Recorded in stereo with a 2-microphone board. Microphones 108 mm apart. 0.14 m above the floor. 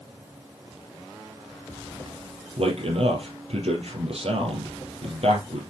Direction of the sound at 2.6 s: 65° right (ahead or behind).